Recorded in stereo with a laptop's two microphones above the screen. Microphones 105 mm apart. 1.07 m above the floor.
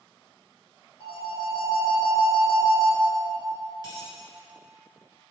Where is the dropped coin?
40° left (ahead or behind), 1.6 m.